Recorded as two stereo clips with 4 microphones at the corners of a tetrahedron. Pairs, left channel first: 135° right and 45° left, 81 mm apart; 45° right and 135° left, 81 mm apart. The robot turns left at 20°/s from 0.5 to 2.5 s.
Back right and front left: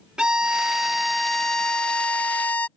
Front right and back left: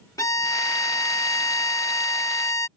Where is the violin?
30° right; by 2.7 s 70° right.